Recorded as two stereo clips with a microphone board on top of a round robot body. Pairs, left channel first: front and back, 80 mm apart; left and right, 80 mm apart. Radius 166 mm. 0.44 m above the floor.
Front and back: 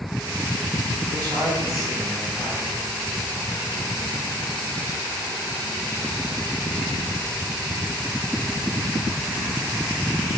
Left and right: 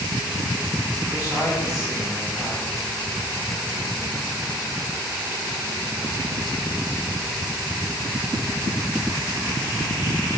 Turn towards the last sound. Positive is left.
turn(degrees=140)